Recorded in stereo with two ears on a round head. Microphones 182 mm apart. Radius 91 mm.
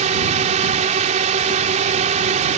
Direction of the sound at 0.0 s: 35° right (ahead or behind).